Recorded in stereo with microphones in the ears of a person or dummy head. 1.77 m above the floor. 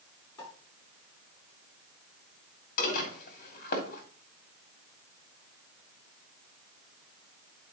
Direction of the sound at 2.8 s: 50° left (ahead or behind).